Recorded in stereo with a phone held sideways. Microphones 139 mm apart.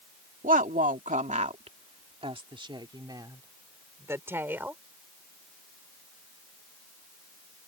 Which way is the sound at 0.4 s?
75° right (ahead or behind).